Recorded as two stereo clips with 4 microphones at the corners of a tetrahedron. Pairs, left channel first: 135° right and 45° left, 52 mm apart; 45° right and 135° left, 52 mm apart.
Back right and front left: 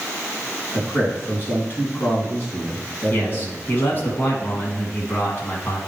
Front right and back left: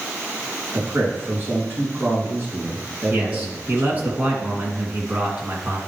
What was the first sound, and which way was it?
A man speaking, straight behind.